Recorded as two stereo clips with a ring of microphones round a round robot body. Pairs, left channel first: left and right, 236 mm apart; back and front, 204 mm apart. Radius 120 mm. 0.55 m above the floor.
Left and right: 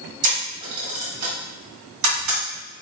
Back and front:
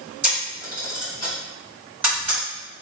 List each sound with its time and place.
0.2 s a camera shutter: 80° right, 1.9 m